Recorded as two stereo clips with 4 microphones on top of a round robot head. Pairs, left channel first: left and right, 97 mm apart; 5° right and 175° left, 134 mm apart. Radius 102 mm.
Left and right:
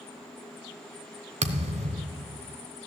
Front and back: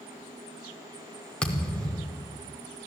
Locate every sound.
1.4 s a thud: 85° right, 1.0 m